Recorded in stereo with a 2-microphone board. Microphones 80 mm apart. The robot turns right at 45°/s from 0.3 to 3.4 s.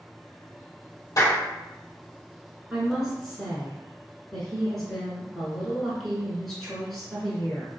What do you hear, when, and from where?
1.2 s a clap: 50° left (ahead or behind), 2.0 m; by 1.4 s 40° left (ahead or behind), 2.0 m
2.7 s a woman speaking: 10° right (ahead or behind), 1.1 m; by 7.7 s centre (ahead or behind), 1.1 m